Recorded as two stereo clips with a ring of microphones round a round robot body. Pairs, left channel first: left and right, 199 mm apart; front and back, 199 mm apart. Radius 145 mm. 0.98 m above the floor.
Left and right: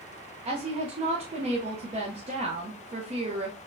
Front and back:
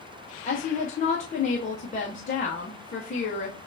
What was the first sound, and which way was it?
A woman speaking, 40° right.